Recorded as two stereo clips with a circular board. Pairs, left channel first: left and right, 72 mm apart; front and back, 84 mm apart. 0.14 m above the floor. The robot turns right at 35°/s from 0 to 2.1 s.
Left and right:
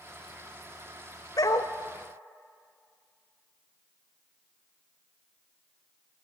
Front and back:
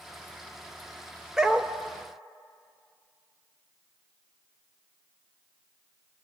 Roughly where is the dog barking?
Left.